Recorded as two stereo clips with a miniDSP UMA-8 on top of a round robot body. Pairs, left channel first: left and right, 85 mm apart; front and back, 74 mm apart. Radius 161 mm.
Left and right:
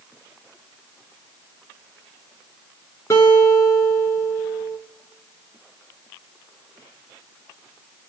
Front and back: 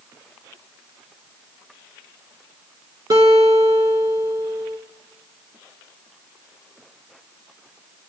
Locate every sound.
3.1 s a guitar: 150° left, 2 m